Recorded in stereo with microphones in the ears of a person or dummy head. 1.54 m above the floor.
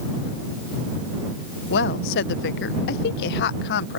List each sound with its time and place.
1.7 s a woman speaking: 60° left (ahead or behind)